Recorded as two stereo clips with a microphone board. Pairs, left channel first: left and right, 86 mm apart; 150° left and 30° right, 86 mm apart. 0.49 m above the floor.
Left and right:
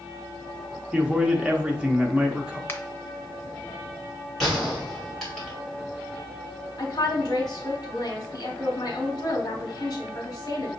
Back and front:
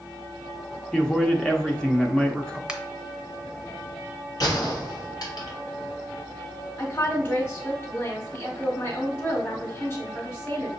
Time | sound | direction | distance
0.9 | a man speaking | 145° right | 0.7 m
2.7 | a finger snap | 45° left | 0.7 m
4.4 | a gunshot | straight behind | 2 m
6.8 | a woman speaking | 95° left | 1.2 m